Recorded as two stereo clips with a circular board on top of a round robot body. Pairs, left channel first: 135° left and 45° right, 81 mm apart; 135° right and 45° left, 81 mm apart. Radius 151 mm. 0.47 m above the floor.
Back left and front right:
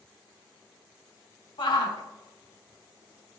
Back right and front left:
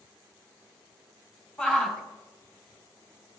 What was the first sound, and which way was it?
A shout, 150° left.